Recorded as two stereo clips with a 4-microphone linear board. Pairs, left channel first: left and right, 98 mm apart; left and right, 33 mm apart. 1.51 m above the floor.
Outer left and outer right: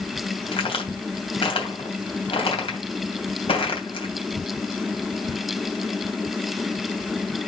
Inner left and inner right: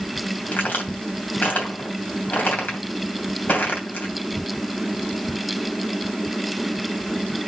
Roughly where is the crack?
Left.